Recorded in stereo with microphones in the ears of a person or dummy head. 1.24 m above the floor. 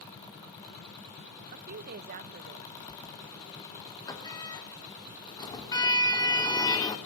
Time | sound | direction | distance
1.5 | a woman speaking | 50° right (ahead or behind) | 1.0 m
2.9 | a sliding door | 20° left (ahead or behind) | 2.5 m